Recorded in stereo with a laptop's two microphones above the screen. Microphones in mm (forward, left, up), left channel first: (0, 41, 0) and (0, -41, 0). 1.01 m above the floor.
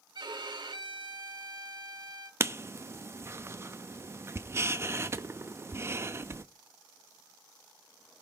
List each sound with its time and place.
0.1 s a violin: 70° right (ahead or behind), 1.3 m
2.4 s writing: 35° right (ahead or behind), 0.7 m